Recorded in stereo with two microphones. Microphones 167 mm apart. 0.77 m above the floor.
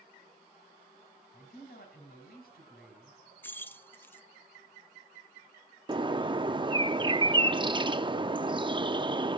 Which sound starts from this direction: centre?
Keys jangling, at 3.4 s.